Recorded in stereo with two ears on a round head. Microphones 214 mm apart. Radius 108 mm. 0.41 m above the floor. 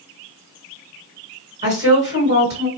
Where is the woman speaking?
30° right (ahead or behind), 2.5 m.